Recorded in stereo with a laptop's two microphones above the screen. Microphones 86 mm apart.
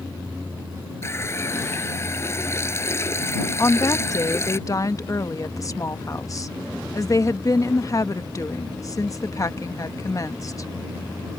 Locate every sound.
1.0 s a running tap: 30° left (ahead or behind)
3.6 s a woman speaking: 40° left (ahead or behind)